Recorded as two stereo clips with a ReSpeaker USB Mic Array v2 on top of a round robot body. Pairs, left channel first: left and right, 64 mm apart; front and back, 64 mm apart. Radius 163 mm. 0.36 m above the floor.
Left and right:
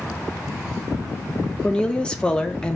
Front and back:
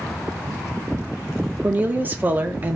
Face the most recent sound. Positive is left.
turn(degrees=150)